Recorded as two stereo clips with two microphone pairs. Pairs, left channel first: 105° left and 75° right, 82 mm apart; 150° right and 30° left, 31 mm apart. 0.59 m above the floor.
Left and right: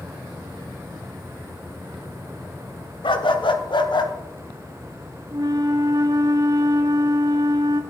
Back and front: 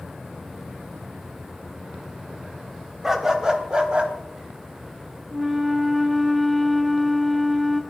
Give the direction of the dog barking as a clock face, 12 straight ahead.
8 o'clock.